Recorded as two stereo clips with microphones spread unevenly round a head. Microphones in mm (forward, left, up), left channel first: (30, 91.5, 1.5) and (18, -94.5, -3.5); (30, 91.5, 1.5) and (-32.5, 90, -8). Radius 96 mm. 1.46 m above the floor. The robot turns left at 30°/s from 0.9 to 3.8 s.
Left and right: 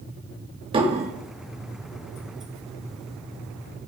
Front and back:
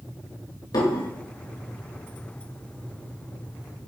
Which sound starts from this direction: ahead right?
Dishes clattering, at 0.7 s.